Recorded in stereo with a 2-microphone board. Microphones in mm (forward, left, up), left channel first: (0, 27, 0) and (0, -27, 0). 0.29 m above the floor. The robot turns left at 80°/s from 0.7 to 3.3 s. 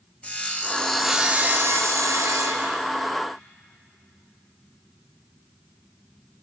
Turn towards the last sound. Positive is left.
turn(degrees=175)